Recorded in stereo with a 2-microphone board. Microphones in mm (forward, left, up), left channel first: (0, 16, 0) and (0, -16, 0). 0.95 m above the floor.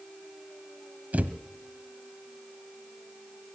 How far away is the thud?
About 1.1 m.